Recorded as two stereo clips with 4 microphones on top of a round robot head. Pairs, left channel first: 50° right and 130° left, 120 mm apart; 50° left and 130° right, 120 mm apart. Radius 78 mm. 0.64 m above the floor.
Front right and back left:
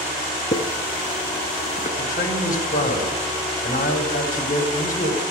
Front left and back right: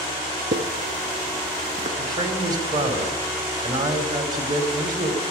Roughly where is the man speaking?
Right.